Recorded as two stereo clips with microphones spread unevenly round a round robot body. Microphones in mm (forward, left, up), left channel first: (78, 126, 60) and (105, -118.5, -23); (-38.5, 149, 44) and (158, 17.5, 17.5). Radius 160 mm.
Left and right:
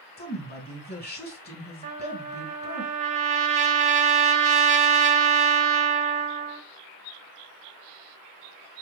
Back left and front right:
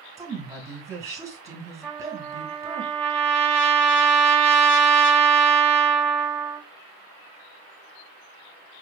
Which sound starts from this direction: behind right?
A trumpet, at 1.8 s.